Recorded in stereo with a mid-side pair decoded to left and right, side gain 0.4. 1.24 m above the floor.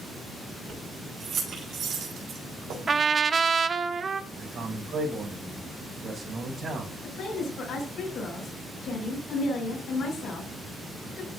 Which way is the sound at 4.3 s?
65° right.